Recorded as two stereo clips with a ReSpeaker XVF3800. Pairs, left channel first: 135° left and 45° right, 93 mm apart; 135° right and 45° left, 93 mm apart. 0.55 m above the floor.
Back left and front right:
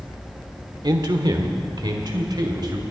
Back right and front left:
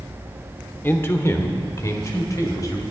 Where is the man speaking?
70° right, 1.0 m; by 2.8 s 85° right, 2 m.